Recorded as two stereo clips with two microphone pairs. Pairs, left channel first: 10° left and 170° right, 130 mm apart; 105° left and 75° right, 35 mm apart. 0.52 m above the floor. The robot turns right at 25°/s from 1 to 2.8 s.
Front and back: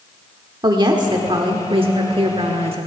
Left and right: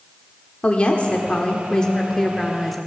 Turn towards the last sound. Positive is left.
turn(degrees=-165)